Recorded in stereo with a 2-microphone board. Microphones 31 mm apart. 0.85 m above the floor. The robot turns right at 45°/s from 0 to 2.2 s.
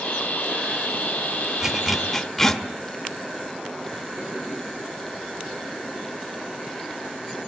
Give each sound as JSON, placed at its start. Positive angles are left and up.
{"t": 1.6, "sound": "a zipper", "side_deg": -15, "distance_m": 1.3}